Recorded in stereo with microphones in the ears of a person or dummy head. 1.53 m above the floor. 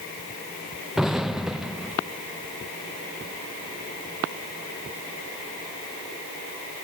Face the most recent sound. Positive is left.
turn(degrees=-5)  # may be behind; listen again after turning